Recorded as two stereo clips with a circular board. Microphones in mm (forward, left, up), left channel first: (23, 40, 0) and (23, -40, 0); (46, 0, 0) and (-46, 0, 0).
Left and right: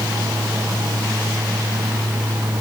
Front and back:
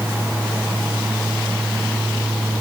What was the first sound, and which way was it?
Only background noise.